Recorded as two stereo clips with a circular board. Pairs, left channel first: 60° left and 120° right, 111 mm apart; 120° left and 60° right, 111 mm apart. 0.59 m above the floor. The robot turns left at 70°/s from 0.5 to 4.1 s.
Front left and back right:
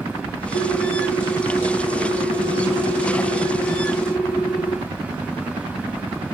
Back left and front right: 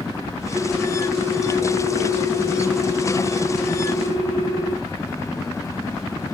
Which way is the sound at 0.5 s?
55° left.